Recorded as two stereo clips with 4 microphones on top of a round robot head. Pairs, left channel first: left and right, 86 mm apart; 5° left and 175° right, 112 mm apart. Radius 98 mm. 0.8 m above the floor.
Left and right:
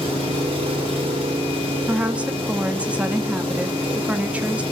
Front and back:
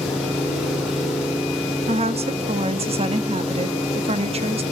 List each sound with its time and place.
0.0 s an engine running: 90° right, 8.5 m
1.9 s a woman speaking: 165° right, 1.6 m